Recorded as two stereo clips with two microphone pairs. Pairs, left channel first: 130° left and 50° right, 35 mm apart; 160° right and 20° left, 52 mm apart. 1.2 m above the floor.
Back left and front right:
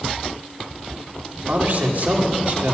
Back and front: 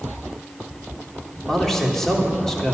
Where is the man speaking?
80° right, 3 m.